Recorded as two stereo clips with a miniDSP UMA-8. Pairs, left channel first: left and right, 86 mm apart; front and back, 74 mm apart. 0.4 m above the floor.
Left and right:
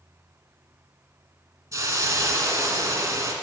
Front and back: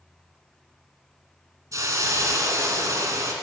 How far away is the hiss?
About 0.8 m.